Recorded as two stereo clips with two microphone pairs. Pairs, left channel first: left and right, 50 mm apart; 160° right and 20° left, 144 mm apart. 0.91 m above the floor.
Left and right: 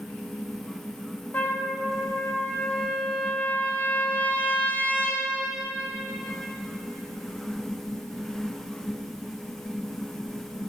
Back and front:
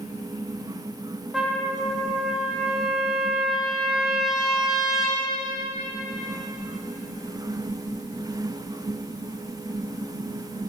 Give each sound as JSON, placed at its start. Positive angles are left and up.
{"t": 1.3, "sound": "a trumpet", "azimuth_deg": 100, "distance_m": 1.0}